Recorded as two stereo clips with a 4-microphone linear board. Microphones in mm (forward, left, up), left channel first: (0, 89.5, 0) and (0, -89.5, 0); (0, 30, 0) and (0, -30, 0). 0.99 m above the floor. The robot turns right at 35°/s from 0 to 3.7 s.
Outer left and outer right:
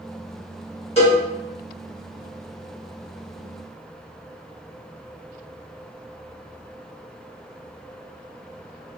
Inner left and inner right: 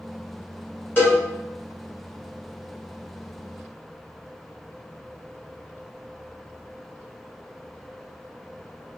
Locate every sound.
1.0 s a cowbell: 40° left (ahead or behind), 1.7 m; by 1.2 s 45° left (ahead or behind), 1.7 m